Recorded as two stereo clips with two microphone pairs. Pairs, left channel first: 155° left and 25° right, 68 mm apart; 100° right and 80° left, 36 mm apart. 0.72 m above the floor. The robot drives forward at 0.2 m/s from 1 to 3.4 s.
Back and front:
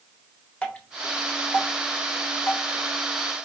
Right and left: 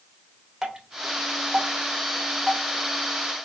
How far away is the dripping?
About 0.8 m.